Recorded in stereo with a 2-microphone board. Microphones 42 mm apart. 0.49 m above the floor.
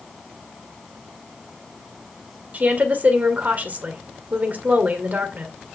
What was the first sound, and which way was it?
A woman speaking, 40° right (ahead or behind).